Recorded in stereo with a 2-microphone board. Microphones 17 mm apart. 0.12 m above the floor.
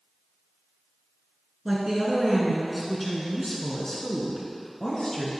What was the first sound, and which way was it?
A woman speaking, 30° right (ahead or behind).